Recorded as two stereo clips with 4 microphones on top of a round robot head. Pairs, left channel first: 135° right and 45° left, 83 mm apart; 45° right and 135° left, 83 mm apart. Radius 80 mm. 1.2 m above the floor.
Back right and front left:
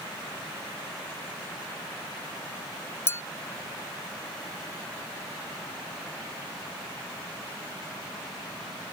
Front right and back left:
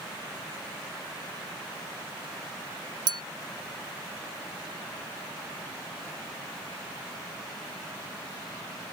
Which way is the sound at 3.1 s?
165° left.